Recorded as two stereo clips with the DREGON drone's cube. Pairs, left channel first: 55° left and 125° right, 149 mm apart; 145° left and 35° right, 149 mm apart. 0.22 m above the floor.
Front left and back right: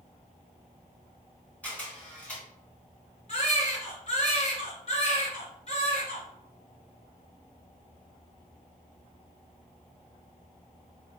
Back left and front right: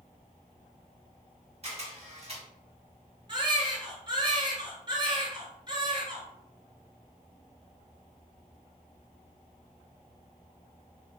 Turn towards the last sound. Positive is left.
turn(degrees=20)